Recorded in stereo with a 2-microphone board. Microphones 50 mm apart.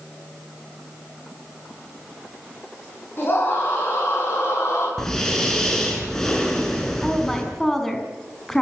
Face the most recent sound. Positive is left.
turn(degrees=5)  # may be behind; listen again after turning